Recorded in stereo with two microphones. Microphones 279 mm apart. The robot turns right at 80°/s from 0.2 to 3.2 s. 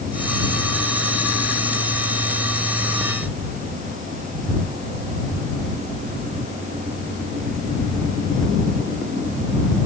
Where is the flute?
I don't hear a flute.